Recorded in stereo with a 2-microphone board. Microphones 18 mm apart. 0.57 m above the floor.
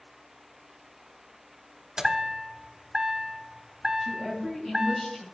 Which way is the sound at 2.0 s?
35° right (ahead or behind).